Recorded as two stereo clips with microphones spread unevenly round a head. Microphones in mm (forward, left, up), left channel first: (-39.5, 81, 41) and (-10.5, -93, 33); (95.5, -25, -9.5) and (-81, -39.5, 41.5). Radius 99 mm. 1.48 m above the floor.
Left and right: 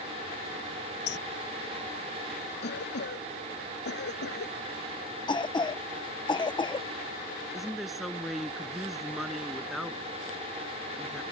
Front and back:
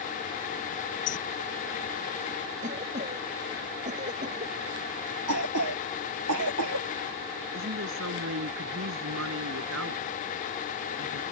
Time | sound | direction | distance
1.1 | a bird | 65° left | ?
2.6 | a cough | 130° left | ?
5.3 | a cough | 165° left | ?
7.5 | a woman speaking | 170° right | ?